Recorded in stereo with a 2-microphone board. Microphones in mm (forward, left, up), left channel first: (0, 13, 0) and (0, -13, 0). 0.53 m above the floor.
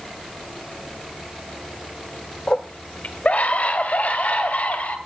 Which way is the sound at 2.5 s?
50° left (ahead or behind).